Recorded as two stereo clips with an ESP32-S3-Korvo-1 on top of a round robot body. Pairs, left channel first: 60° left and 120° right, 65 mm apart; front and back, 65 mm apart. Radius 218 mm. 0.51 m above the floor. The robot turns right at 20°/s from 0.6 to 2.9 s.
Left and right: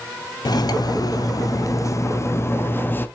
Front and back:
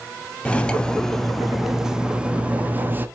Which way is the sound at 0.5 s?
75° left.